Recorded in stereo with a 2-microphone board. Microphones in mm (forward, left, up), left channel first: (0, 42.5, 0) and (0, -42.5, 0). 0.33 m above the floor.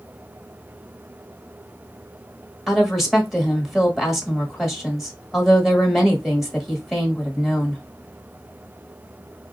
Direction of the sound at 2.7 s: Centre (ahead or behind).